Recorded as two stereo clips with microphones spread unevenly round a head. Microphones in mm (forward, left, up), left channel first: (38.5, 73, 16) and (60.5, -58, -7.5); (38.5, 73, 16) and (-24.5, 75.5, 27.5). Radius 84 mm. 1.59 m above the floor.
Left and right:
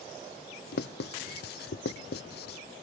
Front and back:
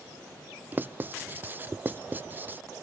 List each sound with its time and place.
0.7 s writing: 115° left, 0.7 m